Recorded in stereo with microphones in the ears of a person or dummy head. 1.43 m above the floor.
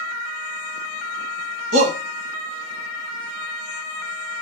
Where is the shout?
50° right (ahead or behind), 0.9 m.